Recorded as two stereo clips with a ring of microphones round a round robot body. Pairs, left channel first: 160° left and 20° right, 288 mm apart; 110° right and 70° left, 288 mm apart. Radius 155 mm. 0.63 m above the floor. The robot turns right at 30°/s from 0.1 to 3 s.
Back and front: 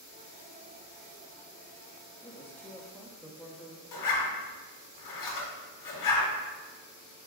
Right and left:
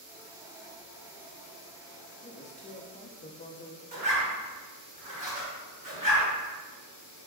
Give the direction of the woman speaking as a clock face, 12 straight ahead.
5 o'clock.